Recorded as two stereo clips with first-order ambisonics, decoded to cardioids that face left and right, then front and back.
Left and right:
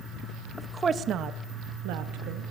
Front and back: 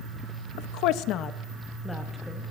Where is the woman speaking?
Straight ahead, 0.6 m; by 2.4 s 95° right, 1.1 m.